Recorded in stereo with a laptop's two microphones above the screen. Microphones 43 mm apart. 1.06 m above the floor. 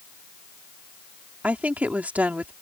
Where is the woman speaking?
35° right (ahead or behind).